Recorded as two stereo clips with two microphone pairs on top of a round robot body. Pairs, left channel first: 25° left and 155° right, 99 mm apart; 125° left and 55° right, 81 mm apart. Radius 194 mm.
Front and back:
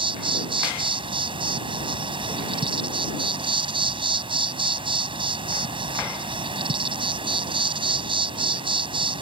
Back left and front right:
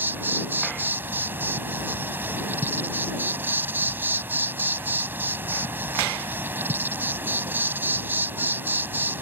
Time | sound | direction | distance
0.0 | an insect | 120° right | ?